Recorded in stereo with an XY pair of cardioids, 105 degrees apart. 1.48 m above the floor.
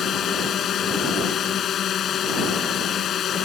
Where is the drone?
60° left.